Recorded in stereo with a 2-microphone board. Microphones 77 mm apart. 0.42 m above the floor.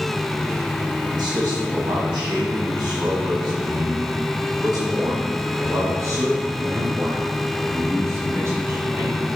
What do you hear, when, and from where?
1.1 s a man speaking: 65° right (ahead or behind), 3 m; by 9.2 s 35° right (ahead or behind), 6 m